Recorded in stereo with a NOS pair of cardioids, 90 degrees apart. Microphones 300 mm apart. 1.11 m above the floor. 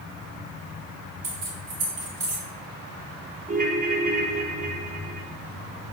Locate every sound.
1.2 s keys jangling: 50° right, 1.8 m
3.5 s a ringtone: 25° right, 0.9 m